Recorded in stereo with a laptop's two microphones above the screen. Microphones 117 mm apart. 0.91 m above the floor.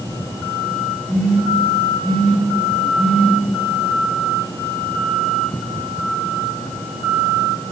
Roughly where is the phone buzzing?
Centre.